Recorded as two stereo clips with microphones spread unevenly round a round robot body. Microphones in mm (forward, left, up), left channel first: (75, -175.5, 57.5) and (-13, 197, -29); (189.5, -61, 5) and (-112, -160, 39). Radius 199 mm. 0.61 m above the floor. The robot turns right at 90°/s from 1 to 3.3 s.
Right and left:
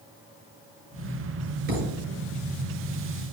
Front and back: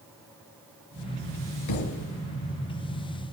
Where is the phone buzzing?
I don't hear a phone buzzing.